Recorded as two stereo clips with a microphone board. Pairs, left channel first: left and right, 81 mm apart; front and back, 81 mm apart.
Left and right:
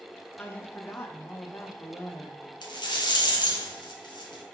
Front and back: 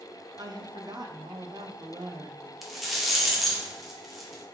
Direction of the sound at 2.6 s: 90° left.